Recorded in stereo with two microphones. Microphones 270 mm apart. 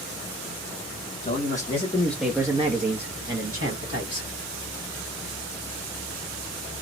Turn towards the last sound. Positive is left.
turn(degrees=-65)  # may be behind; listen again after turning